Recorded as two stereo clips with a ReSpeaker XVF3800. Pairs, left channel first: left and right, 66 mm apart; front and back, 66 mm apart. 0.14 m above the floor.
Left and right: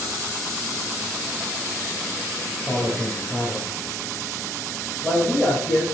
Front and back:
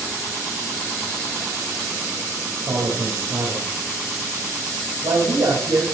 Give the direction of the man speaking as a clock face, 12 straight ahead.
6 o'clock.